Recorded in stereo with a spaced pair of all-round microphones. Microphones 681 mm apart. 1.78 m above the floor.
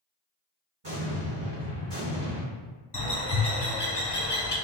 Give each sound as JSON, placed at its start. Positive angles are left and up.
{"t": 0.8, "sound": "an explosion", "side_deg": -40, "distance_m": 1.7}
{"t": 2.9, "sound": "a bird", "side_deg": 40, "distance_m": 0.8}